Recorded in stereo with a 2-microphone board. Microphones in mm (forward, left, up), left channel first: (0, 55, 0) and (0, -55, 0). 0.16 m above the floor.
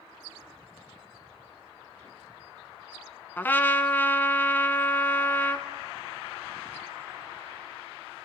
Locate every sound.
3.4 s a trumpet: 20° left (ahead or behind), 1.0 m